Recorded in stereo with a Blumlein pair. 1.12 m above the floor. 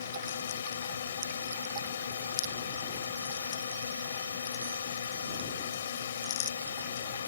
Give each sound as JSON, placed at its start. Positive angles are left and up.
{"t": 0.0, "sound": "a drone", "azimuth_deg": 65}